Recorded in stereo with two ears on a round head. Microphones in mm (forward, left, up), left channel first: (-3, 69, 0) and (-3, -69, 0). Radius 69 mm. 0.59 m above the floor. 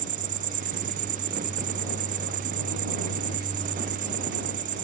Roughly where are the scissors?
I don't hear scissors.